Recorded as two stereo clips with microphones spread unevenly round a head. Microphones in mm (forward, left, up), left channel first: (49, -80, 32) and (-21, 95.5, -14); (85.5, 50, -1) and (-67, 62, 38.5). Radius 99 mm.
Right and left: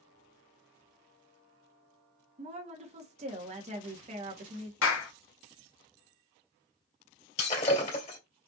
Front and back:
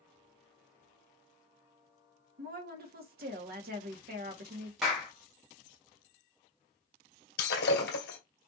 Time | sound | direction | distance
2.4 | a woman speaking | 160° left | 1.3 m
4.8 | a clap | 90° right | 1.2 m
7.4 | breaking glass | 25° right | 2 m